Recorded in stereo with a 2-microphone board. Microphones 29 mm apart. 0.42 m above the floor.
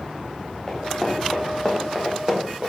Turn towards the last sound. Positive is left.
turn(degrees=-45)  # may be behind; listen again after turning